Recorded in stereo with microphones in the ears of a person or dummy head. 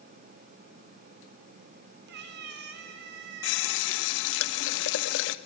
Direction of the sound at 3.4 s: 70° left (ahead or behind).